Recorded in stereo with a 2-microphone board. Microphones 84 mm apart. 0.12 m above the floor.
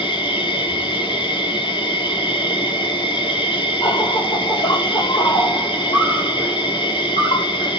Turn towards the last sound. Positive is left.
turn(degrees=75)  # may be behind; listen again after turning